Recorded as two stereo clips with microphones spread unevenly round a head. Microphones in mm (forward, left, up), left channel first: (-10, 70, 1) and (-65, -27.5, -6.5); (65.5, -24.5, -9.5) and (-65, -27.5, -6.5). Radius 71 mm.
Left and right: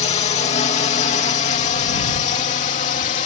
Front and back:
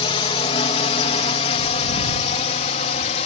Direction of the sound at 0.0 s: 45° left.